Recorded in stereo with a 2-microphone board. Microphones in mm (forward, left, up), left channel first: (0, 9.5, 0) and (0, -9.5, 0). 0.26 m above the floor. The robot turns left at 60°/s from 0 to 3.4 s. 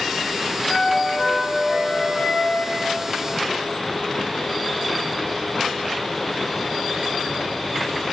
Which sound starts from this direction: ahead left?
A flute, at 0.7 s.